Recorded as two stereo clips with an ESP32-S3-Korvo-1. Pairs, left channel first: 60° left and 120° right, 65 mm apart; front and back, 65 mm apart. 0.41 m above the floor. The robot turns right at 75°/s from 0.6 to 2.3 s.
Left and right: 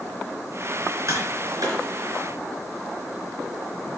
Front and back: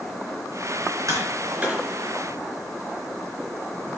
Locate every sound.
1.1 s tapping: 150° right, 3.5 m; by 1.8 s 95° right, 3.5 m